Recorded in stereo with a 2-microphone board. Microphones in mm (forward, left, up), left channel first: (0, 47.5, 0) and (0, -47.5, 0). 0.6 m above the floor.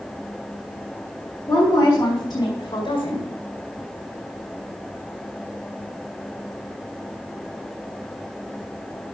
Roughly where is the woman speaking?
Centre.